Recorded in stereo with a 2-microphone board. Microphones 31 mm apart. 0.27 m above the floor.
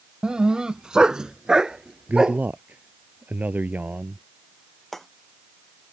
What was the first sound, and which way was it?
A dog barking, 30° right (ahead or behind).